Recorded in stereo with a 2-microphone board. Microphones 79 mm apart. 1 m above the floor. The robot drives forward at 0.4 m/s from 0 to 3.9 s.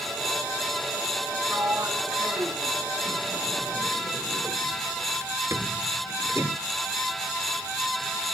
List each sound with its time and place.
1.5 s a sliding door: 35° right (ahead or behind)